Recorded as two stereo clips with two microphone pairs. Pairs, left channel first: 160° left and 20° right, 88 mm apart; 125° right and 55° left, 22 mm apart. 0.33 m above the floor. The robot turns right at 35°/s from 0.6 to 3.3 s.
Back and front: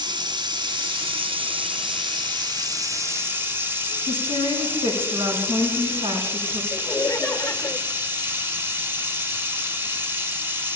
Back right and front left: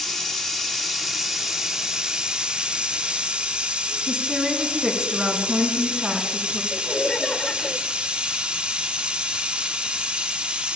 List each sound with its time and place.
0.0 s running water: 50° right, 1.4 m; by 10.8 s 45° left, 1.4 m
4.1 s a woman speaking: 5° right, 4 m
6.7 s laughter: 145° right, 1.0 m